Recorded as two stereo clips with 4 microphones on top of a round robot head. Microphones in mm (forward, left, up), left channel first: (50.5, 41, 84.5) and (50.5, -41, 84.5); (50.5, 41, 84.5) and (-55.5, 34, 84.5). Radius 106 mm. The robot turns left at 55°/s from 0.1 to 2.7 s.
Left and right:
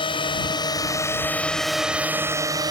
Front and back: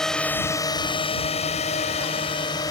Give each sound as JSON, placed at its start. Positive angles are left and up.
{"t": 0.0, "sound": "a drone", "azimuth_deg": 90}